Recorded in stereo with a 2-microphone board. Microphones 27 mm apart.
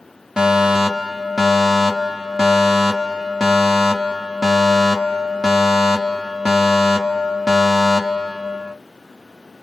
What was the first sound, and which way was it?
A fire alarm, 20° right (ahead or behind).